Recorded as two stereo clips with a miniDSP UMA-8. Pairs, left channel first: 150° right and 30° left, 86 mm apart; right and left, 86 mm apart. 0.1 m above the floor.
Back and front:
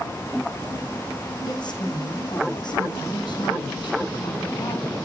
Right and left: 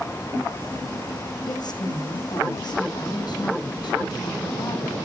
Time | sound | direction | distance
1.4 | a woman speaking | 120° right | 5 m